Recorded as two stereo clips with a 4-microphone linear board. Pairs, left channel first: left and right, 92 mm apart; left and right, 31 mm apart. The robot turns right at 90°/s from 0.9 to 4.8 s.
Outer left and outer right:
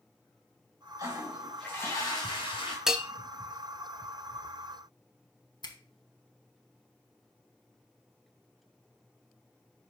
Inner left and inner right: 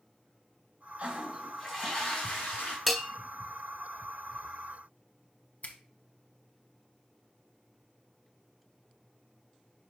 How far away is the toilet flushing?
About 3 m.